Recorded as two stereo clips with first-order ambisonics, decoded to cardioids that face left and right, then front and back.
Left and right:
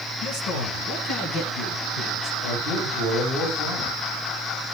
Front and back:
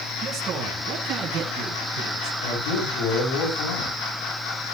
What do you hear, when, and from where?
0.2 s a man speaking: 115° left, 6.5 m; by 2.3 s 130° left, 6 m
2.4 s a man speaking: 20° left, 7 m